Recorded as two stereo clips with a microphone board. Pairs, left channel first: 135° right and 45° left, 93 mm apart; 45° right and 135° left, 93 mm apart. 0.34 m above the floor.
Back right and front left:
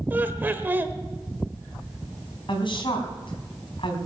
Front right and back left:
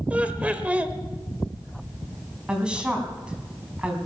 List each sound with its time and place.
0.1 s laughter: 80° left, 1.2 m
2.5 s a woman speaking: 145° right, 3 m